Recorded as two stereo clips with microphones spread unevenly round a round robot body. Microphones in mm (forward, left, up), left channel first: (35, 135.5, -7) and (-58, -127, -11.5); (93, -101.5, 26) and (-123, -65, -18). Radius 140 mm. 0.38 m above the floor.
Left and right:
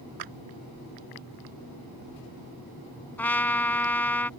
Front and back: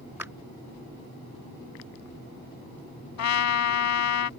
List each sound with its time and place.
0.2 s a clap: 110° right
3.2 s a trumpet: 15° right